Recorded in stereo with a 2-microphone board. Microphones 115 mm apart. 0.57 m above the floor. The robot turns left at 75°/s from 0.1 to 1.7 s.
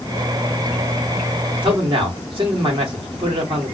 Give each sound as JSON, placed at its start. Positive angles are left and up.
{"t": 1.6, "sound": "a man speaking", "side_deg": -45, "distance_m": 1.2}